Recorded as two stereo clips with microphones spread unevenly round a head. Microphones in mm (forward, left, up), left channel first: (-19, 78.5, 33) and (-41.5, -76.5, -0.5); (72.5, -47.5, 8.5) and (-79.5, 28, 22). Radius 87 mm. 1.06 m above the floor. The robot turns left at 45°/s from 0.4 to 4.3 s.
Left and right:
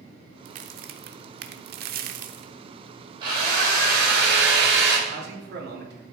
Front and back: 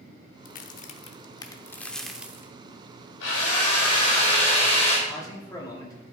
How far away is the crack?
About 0.8 m.